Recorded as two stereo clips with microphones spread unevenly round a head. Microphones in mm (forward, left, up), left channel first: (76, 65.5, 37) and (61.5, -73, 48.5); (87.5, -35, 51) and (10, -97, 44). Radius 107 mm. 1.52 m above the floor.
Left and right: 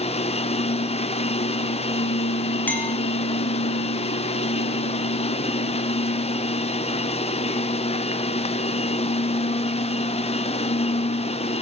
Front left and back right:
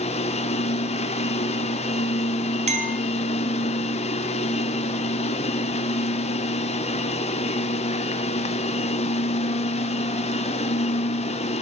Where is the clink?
170° left, 0.7 m.